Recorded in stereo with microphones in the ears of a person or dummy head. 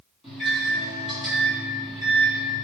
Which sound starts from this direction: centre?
A microwave, at 0.2 s.